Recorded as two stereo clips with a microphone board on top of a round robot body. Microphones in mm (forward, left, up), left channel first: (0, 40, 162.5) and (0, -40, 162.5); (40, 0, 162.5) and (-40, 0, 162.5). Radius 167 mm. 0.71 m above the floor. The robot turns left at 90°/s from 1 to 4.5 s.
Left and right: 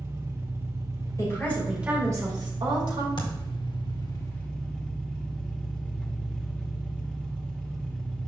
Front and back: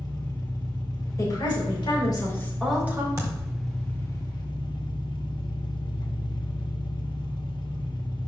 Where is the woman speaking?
45° left, 4 m; by 3.1 s 125° right, 4 m.